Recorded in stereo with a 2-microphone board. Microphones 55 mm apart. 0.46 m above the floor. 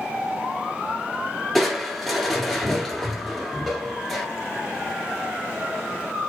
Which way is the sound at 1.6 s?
5° left (ahead or behind).